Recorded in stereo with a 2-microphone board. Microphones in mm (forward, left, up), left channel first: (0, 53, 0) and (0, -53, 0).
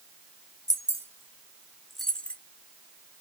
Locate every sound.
0.7 s keys jangling: 35° right (ahead or behind), 1.7 m; by 2.4 s 15° left (ahead or behind), 1.4 m